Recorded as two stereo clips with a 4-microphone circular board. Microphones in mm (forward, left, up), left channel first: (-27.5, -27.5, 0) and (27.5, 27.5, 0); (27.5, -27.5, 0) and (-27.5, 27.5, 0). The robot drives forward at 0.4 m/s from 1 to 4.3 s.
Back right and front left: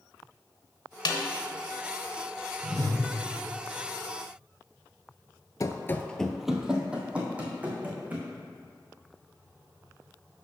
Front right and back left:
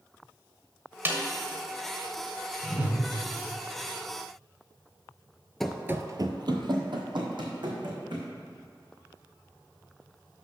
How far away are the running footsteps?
About 0.6 m.